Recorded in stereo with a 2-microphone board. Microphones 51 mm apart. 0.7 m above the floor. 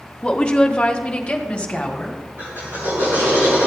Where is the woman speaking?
20° left (ahead or behind), 0.7 m; by 2.2 s 15° left (ahead or behind), 1.8 m.